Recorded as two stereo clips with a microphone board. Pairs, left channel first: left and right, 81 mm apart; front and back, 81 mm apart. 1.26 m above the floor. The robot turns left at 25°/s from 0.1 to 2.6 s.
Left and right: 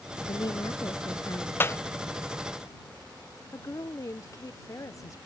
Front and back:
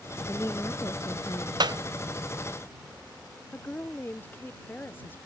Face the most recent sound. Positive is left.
turn(degrees=60)